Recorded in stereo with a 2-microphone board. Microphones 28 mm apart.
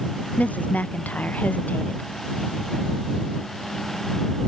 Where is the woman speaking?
70° left (ahead or behind).